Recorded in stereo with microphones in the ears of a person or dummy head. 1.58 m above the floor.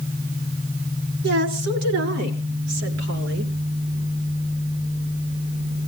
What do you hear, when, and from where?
1.2 s a woman speaking: 60° right (ahead or behind), 4.5 m